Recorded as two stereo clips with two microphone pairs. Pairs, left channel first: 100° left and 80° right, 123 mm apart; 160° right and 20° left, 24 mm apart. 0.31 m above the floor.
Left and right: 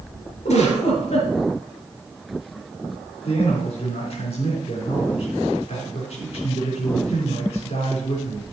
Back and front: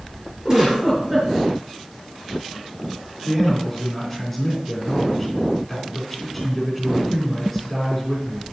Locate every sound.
0.5 s a giggle: 80° left, 4 m
3.2 s a man speaking: 120° left, 3 m